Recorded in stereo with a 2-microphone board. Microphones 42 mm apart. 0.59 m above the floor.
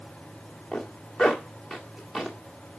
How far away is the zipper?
About 1.8 m.